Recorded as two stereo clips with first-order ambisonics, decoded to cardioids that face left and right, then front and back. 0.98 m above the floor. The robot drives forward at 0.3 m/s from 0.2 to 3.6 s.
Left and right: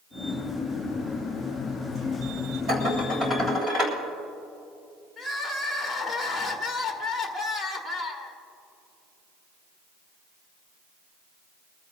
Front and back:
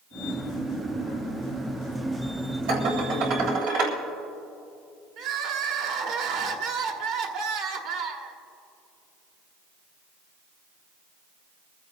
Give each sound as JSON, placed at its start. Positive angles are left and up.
{"t": 2.7, "sound": "dishes clattering", "azimuth_deg": -150, "distance_m": 3.0}
{"t": 5.2, "sound": "crying", "azimuth_deg": 180, "distance_m": 1.6}